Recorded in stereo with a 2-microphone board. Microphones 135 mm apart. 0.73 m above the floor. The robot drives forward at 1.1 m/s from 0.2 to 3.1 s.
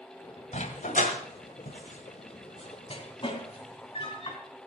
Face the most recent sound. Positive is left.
turn(degrees=40)  # may be behind; listen again after turning